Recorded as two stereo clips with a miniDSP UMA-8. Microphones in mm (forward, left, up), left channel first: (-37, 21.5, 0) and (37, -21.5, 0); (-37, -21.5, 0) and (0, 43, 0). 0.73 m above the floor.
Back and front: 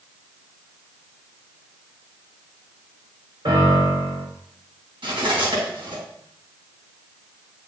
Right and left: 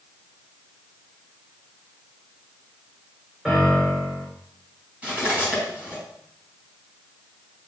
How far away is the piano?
About 3 m.